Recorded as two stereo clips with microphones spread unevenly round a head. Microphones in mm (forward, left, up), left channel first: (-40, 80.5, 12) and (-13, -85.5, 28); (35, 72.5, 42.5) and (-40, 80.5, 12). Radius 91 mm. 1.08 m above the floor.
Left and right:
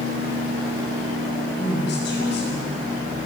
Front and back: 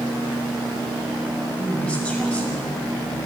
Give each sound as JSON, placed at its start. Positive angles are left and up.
{"t": 1.6, "sound": "a woman speaking", "azimuth_deg": 65, "distance_m": 6.5}